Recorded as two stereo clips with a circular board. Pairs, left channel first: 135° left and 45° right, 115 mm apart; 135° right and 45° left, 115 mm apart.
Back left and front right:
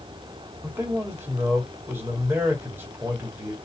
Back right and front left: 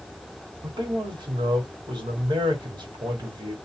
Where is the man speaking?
20° left, 1.4 m.